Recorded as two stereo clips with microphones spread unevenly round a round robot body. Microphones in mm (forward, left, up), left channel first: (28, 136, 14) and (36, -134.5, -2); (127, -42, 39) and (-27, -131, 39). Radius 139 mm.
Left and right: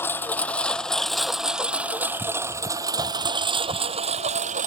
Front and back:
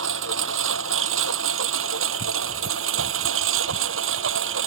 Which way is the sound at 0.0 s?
175° left.